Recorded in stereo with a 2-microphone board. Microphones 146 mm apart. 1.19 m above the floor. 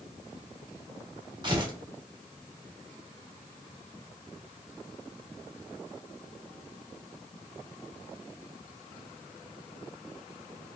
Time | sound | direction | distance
1.4 | tearing paper | 30° right (ahead or behind) | 1.2 m